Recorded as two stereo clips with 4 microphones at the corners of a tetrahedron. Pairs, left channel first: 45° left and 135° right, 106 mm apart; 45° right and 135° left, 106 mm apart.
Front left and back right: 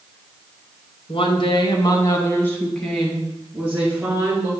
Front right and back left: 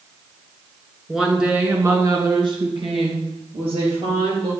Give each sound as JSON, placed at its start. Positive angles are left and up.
{"t": 1.1, "sound": "a woman speaking", "azimuth_deg": 45, "distance_m": 2.0}